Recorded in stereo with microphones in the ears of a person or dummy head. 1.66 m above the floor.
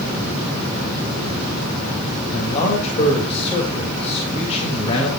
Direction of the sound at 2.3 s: 35° left (ahead or behind).